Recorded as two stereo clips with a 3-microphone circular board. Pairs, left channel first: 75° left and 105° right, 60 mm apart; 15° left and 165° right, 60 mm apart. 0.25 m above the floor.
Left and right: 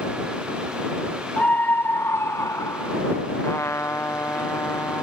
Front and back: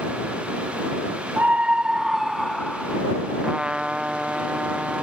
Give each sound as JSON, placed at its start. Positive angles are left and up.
{"t": 1.4, "sound": "a scream", "azimuth_deg": 135}
{"t": 3.4, "sound": "a trumpet", "azimuth_deg": 120}